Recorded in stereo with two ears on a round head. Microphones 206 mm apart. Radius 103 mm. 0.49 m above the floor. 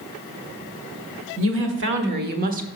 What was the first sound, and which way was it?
A woman speaking, 60° right (ahead or behind).